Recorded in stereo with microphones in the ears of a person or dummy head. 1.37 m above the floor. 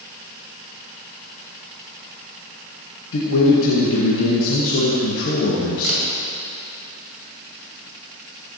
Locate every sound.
3.1 s a man speaking: 80° left, 1.2 m
5.8 s a camera shutter: 80° right, 2 m